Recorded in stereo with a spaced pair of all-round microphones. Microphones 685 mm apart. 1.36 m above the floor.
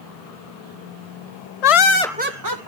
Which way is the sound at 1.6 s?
70° left (ahead or behind).